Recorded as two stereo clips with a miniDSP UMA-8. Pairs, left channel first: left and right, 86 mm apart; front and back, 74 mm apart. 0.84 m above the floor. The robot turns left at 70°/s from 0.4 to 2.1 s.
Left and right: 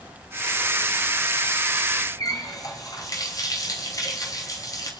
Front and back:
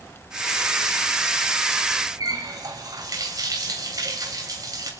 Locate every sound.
2.2 s a running tap: 140° left, 3 m